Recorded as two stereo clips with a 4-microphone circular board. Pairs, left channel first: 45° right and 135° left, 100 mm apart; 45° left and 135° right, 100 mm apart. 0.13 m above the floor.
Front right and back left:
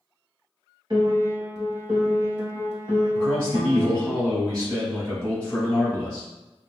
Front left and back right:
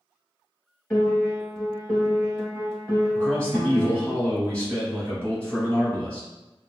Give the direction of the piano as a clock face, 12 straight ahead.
8 o'clock.